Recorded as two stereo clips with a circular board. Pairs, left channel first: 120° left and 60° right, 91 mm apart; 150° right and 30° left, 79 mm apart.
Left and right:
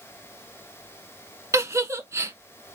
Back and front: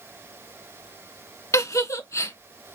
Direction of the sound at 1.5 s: 110° right.